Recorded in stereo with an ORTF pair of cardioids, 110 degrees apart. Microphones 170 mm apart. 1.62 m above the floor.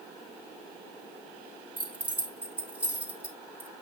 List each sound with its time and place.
1.8 s keys jangling: 10° right, 2.5 m